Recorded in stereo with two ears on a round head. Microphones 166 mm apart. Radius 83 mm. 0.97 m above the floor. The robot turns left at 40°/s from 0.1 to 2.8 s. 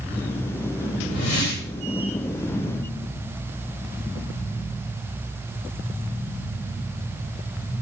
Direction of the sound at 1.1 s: 80° left.